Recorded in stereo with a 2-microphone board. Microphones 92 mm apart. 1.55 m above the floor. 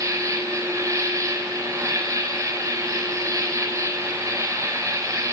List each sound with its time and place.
0.0 s an insect: 35° right (ahead or behind), 3.5 m